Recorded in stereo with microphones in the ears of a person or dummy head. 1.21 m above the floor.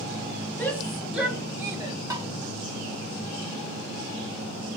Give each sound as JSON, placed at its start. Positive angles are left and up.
{"t": 0.6, "sound": "a shout", "side_deg": 5, "distance_m": 2.0}
{"t": 2.1, "sound": "tapping", "side_deg": -20, "distance_m": 1.8}